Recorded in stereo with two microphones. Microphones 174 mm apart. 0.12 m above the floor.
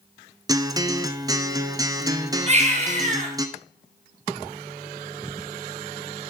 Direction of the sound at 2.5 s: 40° right (ahead or behind).